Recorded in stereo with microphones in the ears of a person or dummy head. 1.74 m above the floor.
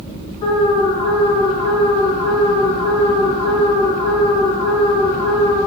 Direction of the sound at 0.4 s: 40° left (ahead or behind).